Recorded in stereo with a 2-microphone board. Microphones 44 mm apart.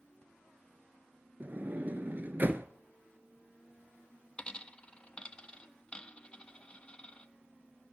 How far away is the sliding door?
About 0.5 m.